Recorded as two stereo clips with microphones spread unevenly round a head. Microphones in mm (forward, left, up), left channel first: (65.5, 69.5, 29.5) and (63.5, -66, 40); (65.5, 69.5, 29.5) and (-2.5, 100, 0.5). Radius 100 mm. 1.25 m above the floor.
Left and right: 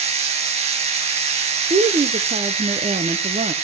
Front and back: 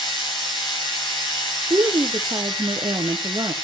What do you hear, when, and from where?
0.0 s a machine running: 55° right, 3.5 m
1.7 s a woman speaking: 150° right, 0.5 m